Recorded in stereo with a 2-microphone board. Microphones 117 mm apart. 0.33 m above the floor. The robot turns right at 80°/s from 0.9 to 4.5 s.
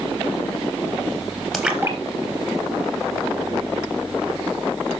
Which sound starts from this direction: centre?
A splash, at 1.5 s.